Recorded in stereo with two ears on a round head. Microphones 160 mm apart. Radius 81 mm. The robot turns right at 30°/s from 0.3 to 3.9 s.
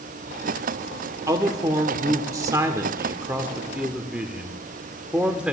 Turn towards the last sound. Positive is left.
turn(degrees=-5)  # may be behind; listen again after turning